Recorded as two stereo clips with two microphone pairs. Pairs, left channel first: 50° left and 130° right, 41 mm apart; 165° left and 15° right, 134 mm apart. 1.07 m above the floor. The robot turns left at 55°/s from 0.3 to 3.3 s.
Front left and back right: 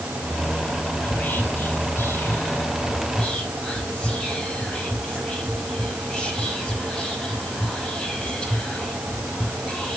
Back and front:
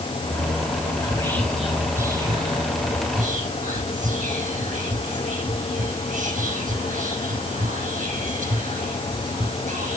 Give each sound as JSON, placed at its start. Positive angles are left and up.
{"t": 1.0, "sound": "whispering", "azimuth_deg": 110, "distance_m": 5.5}